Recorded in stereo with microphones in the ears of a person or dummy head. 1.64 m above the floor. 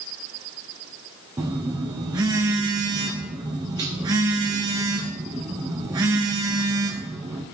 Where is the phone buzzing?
15° right (ahead or behind), 0.5 m.